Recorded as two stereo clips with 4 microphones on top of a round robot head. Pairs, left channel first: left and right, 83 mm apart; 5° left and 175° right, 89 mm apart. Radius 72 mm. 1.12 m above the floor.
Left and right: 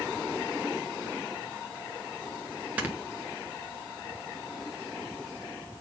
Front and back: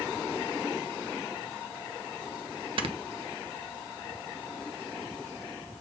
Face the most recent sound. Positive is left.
turn(degrees=-165)